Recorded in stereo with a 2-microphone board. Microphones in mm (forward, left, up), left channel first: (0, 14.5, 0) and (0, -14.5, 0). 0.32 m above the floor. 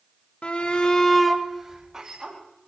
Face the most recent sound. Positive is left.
turn(degrees=-25)  # may be behind; listen again after turning